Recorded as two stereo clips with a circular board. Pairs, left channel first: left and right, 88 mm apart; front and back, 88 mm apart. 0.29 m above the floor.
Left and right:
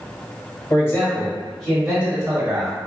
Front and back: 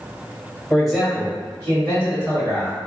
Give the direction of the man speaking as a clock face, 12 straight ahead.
9 o'clock.